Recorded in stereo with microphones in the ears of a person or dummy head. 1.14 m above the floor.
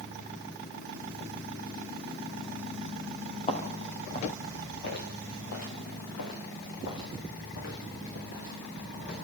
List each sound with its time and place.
3.5 s footsteps: 35° left (ahead or behind), 4.5 m; by 9.2 s 55° left (ahead or behind), 6.5 m